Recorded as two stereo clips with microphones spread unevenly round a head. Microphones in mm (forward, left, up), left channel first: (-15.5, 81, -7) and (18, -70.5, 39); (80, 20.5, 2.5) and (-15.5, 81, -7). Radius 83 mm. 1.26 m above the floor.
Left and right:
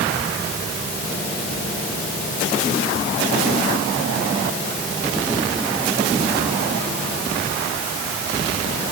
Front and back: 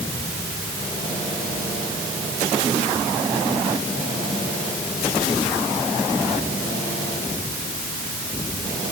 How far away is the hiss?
I don't hear a hiss.